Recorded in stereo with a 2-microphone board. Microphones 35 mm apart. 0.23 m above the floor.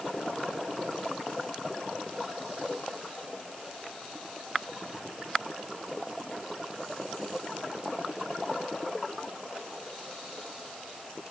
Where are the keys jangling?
No keys jangling in this recording.